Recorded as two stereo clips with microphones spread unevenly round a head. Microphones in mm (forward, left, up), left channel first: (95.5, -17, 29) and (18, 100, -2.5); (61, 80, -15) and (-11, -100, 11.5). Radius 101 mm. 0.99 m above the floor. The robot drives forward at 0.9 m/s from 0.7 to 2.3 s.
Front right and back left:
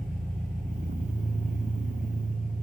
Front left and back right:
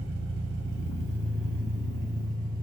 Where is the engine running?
145° right, 1.7 m; by 2.6 s 160° right, 3 m.